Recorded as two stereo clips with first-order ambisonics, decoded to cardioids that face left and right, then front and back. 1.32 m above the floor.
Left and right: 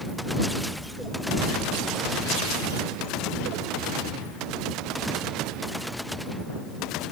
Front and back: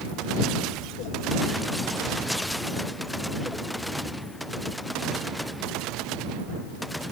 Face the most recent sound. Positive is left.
No sound to turn to.